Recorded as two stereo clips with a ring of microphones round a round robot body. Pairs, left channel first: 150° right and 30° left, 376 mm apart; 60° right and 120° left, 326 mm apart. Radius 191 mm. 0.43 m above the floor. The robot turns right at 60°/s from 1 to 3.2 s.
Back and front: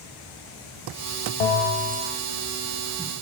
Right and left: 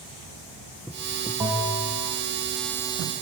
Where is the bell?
160° right, 1.4 m; by 2.1 s 115° right, 1.4 m.